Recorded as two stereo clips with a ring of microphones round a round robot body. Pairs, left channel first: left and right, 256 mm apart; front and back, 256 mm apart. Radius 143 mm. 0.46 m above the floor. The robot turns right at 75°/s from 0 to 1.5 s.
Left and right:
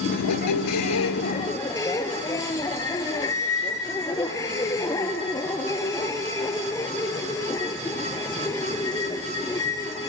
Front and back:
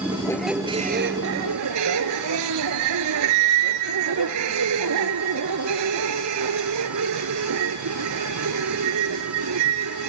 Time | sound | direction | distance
0.1 | a squeak | 65° left | 0.9 m